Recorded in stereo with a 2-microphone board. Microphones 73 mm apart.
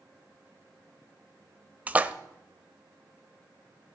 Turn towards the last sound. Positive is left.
turn(degrees=-20)  # may be behind; listen again after turning